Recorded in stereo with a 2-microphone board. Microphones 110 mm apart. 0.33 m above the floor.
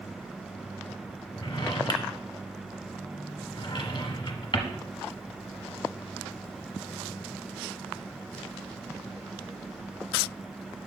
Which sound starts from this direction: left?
A drawer, at 1.4 s.